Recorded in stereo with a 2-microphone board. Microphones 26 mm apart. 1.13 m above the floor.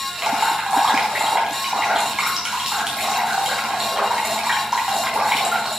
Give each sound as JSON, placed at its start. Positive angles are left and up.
{"t": 0.2, "sound": "dripping", "side_deg": -25, "distance_m": 4.0}